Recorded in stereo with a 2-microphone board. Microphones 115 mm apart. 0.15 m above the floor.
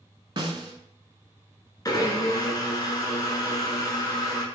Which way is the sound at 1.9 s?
35° left (ahead or behind).